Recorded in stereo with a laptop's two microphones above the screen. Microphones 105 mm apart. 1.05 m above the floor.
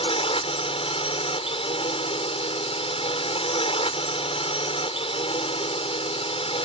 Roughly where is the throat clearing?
I don't hear throat clearing.